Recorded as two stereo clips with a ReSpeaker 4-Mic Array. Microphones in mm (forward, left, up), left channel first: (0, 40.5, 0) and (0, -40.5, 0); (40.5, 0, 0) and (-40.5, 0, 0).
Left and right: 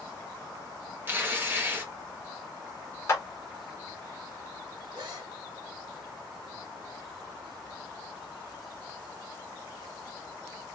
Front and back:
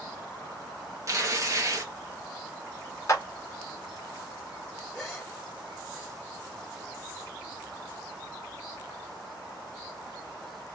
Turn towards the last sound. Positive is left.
turn(degrees=-80)